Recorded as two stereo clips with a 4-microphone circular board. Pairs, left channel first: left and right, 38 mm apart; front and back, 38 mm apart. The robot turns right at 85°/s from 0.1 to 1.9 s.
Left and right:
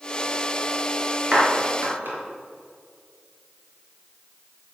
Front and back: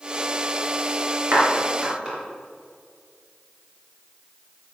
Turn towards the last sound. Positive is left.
turn(degrees=-110)